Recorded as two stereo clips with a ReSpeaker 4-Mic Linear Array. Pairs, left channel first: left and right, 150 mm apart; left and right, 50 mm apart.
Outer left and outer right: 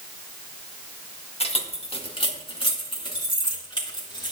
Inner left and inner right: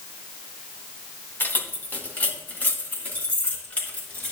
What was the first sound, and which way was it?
Keys jangling, 40° left (ahead or behind).